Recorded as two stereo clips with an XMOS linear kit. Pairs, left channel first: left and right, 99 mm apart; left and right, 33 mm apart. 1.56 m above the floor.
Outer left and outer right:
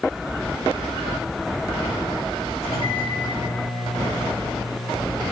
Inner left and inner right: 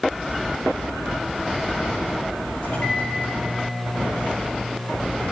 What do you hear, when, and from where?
2.6 s a microwave: 85° left, 3.5 m